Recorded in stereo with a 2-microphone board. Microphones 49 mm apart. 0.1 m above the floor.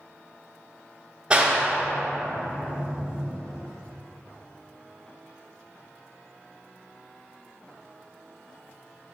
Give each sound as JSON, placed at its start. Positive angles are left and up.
{"t": 1.3, "sound": "a clap", "side_deg": -15, "distance_m": 1.5}